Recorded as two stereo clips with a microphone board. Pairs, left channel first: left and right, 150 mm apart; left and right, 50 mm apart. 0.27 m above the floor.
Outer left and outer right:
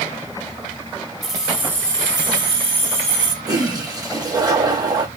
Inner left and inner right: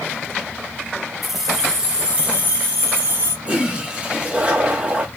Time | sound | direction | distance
1.2 | keys jangling | centre (ahead or behind) | 1.0 m
3.5 | a toilet flushing | 25° right (ahead or behind) | 0.8 m